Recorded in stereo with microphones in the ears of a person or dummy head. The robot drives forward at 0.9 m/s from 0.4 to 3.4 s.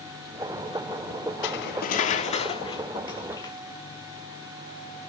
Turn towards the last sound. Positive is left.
turn(degrees=25)  # may be behind; listen again after turning